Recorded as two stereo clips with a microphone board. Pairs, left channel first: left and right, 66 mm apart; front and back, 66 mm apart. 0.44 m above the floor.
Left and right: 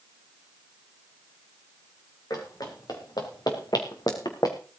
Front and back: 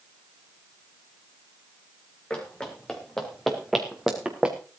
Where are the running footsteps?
75° left, 5 m; by 4.6 s 110° left, 3 m.